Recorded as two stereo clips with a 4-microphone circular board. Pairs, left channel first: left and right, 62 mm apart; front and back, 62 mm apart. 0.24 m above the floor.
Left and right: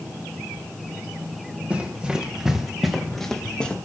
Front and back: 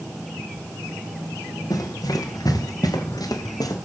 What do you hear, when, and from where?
1.7 s running footsteps: 20° right, 5 m; by 3.8 s 15° left, 4.5 m